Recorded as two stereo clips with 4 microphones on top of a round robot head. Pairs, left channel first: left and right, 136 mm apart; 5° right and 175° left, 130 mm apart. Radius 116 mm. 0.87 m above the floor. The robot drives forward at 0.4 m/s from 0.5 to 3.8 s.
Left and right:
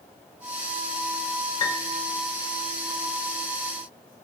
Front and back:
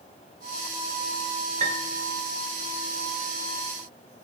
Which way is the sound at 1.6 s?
155° left.